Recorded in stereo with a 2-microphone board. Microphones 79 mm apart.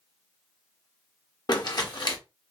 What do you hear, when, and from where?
1.5 s crumpling: 55° left (ahead or behind), 1.0 m